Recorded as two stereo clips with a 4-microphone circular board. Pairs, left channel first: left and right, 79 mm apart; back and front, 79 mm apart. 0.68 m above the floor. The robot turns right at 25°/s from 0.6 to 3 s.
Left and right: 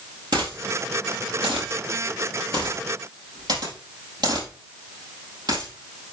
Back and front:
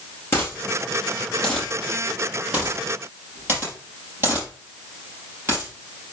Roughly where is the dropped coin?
Behind right.